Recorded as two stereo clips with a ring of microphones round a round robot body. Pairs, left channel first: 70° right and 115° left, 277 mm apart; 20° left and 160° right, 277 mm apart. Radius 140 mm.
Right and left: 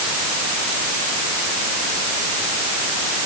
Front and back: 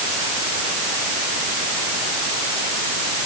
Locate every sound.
Only background noise.